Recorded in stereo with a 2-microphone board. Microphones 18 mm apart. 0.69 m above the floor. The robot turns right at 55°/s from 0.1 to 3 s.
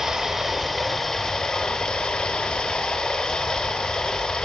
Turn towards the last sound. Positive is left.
turn(degrees=125)